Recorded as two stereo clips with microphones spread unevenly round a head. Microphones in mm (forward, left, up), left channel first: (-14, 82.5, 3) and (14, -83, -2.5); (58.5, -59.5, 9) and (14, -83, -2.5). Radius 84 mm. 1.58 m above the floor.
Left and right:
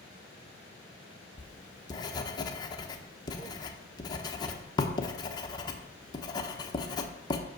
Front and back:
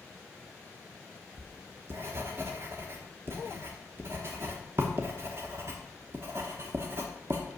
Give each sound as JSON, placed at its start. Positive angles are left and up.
{"t": 1.4, "sound": "writing", "azimuth_deg": 155, "distance_m": 0.8}